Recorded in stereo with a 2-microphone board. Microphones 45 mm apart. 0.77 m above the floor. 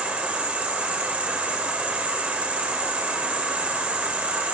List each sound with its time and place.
0.0 s an insect: 25° right (ahead or behind), 0.7 m